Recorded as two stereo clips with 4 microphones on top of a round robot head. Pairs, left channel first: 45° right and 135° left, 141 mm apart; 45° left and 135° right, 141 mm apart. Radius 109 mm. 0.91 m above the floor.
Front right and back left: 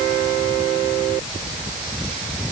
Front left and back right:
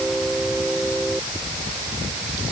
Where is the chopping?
I don't hear chopping.